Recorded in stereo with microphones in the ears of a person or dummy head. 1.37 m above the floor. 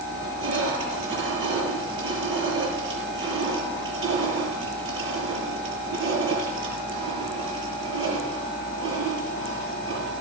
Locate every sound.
0.1 s crushing: 30° right (ahead or behind), 8 m